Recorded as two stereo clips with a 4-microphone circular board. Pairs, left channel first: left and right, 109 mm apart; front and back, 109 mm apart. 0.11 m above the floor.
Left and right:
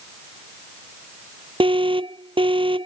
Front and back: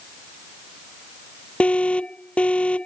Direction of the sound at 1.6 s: 75° right.